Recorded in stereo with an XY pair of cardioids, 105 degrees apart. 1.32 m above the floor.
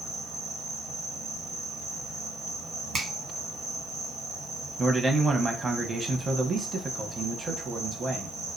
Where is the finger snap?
50° right, 1.3 m.